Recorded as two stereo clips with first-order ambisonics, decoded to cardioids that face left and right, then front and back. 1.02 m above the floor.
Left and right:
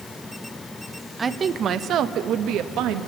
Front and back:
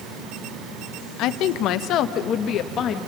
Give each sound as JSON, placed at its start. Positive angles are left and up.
{"t": 1.2, "sound": "a woman speaking", "azimuth_deg": -20, "distance_m": 0.8}